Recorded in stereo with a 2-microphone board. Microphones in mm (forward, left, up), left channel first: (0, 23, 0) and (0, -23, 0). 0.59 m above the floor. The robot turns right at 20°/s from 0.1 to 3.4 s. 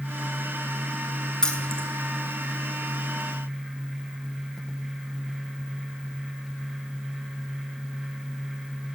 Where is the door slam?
No door slam in this recording.